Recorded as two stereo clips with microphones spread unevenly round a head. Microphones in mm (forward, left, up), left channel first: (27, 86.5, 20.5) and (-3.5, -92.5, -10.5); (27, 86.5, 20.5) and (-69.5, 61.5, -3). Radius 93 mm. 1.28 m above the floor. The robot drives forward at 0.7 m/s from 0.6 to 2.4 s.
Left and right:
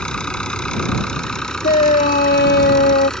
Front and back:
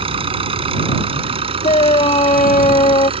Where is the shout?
30° left; by 3.1 s 40° left.